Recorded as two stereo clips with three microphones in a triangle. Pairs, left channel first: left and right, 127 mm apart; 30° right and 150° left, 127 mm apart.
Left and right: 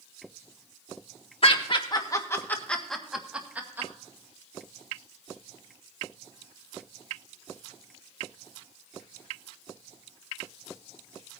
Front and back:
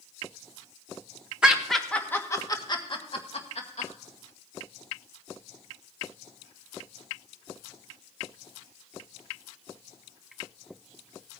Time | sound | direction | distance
1.4 | laughter | 70° left | 1.5 m